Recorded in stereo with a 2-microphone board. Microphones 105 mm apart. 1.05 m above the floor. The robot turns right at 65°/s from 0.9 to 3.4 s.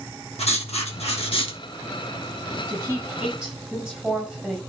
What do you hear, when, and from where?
0.4 s writing: 85° left, 1.3 m; by 1.6 s 130° left, 1.3 m
2.7 s a woman speaking: 55° right, 5 m; by 4.6 s 5° right, 5 m